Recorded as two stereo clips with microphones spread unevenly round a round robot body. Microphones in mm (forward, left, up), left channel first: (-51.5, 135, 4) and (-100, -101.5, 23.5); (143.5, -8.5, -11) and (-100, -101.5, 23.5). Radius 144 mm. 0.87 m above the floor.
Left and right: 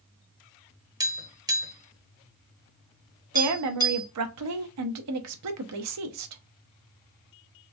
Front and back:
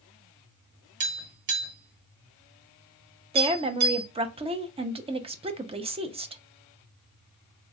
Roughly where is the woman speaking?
Right.